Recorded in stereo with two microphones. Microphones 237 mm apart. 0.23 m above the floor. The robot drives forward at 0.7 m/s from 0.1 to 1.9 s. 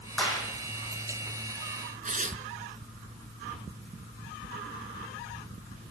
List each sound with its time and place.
0.2 s a clap: 5° left (ahead or behind), 8 m
2.0 s tearing paper: 35° right (ahead or behind), 1.1 m